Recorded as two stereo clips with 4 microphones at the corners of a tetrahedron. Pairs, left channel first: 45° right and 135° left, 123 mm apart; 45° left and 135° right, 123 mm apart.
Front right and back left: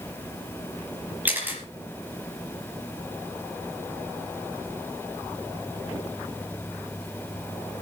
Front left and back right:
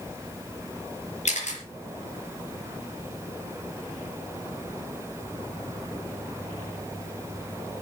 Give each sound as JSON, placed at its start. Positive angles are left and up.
{"t": 1.2, "sound": "a camera shutter", "azimuth_deg": 60, "distance_m": 5.0}